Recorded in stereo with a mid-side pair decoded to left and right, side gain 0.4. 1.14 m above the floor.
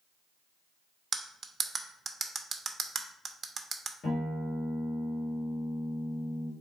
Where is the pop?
No pop in this recording.